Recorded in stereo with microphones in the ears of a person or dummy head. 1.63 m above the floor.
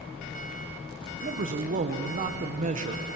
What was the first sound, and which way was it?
A man speaking, 40° right (ahead or behind).